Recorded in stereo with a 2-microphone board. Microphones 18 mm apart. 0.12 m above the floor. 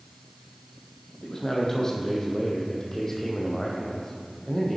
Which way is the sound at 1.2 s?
30° left (ahead or behind).